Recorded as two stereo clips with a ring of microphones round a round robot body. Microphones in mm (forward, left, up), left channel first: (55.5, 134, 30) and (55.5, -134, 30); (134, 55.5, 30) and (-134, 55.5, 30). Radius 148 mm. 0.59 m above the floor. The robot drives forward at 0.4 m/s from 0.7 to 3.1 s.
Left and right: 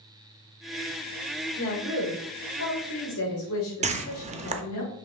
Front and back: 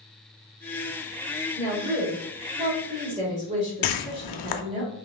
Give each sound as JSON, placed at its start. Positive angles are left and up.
{"t": 1.6, "sound": "a woman speaking", "azimuth_deg": 100, "distance_m": 2.0}
{"t": 3.8, "sound": "a whoosh", "azimuth_deg": -25, "distance_m": 0.5}